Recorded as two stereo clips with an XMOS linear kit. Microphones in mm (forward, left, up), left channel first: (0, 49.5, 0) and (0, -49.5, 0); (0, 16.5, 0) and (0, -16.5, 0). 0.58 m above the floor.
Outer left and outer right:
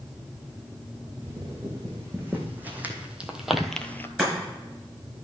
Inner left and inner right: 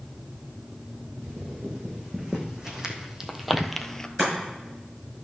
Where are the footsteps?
25° right (ahead or behind), 3 m; by 4.1 s 25° left (ahead or behind), 0.6 m.